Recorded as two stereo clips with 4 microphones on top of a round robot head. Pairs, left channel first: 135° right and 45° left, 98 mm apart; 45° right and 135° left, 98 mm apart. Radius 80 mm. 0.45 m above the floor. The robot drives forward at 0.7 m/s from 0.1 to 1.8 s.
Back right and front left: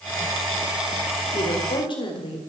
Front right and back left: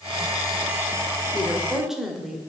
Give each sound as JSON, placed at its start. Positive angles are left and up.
{"t": 1.3, "sound": "a woman speaking", "azimuth_deg": -130, "distance_m": 1.7}